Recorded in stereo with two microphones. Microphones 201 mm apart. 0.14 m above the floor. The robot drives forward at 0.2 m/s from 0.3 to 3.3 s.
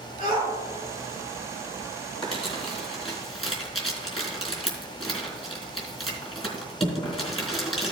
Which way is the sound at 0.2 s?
40° left (ahead or behind).